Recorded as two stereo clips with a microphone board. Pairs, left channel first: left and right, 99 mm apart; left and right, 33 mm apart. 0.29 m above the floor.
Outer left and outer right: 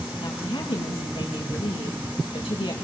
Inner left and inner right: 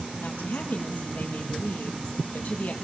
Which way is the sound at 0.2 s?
70° left (ahead or behind).